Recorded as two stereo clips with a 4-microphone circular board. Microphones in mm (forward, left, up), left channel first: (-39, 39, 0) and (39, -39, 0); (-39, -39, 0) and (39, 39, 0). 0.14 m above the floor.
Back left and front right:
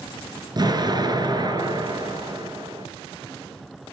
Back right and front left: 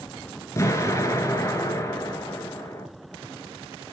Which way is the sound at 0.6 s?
80° right.